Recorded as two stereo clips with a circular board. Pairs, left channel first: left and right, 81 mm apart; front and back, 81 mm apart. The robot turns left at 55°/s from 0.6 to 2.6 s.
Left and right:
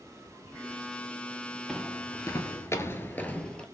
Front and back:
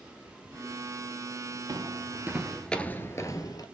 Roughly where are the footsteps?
Behind.